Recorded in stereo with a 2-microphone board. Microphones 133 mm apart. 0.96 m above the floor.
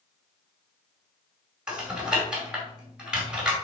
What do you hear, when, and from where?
1.7 s typing on a keyboard: 5° right (ahead or behind), 2.5 m